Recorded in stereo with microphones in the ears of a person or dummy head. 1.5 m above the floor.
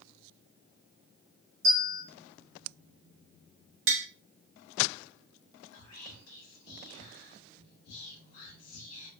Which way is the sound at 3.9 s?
65° right (ahead or behind).